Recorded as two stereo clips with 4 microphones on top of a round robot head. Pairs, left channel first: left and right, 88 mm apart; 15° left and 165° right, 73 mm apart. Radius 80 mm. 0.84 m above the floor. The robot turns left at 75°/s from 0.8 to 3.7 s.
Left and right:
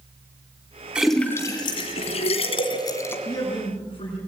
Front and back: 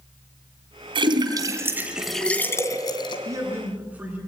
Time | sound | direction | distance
0.9 | a splash | 170° right | 2.5 m
3.2 | a man speaking | 155° left | 9.5 m